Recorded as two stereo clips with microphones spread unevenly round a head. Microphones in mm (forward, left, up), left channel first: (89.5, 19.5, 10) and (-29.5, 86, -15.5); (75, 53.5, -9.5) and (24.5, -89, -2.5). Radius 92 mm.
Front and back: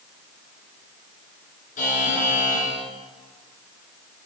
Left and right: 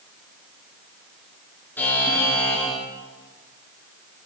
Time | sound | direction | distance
1.8 | a buzzer | 10° right | 5 m